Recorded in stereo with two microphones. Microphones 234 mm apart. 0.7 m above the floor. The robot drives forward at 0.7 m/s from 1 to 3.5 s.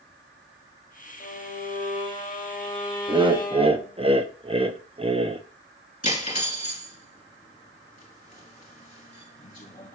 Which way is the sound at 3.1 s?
20° right (ahead or behind).